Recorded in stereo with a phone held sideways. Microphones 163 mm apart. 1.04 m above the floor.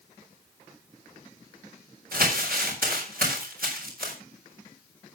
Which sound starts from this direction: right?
Crumpling, at 2.1 s.